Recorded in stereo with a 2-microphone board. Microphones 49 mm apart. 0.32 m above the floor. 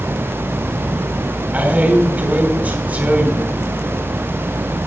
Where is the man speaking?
30° right (ahead or behind), 3 m.